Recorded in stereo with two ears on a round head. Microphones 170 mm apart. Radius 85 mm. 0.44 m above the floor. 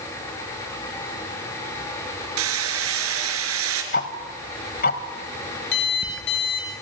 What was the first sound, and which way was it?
Hammering, 80° right.